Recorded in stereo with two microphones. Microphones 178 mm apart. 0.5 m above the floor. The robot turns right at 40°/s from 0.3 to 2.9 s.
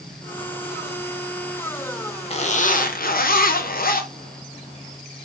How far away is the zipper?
About 0.6 m.